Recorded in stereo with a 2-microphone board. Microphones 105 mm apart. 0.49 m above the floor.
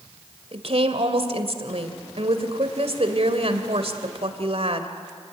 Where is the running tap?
No running tap in this recording.